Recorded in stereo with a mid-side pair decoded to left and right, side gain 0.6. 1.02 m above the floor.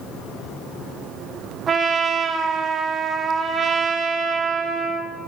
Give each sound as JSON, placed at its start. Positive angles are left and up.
{"t": 1.7, "sound": "a trumpet", "azimuth_deg": -40, "distance_m": 0.7}